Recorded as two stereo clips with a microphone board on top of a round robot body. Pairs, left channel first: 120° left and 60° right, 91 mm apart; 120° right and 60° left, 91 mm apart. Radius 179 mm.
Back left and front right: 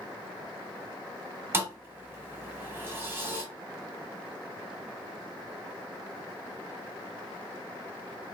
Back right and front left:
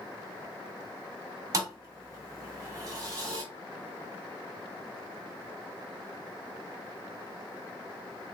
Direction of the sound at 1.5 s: 5° left.